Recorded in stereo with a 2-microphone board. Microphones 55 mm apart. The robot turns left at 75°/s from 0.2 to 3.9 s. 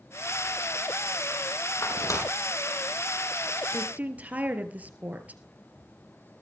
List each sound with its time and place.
1.8 s tearing paper: 70° left (ahead or behind), 4.5 m; by 2.2 s 65° left (ahead or behind), 4.5 m
3.7 s a woman speaking: 20° right (ahead or behind), 2.5 m; by 5.4 s 30° right (ahead or behind), 2.5 m